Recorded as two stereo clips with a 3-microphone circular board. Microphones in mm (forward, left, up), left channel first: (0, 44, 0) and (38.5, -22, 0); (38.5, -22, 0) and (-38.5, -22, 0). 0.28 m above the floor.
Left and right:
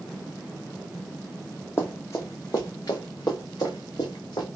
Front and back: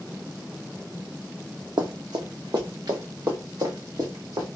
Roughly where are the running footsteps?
Behind.